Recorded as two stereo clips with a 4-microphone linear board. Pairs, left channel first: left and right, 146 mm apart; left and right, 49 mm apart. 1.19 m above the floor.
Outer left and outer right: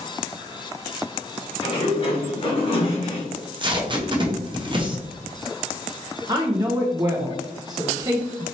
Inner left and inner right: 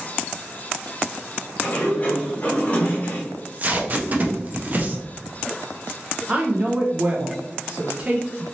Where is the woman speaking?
30° right (ahead or behind), 0.6 m.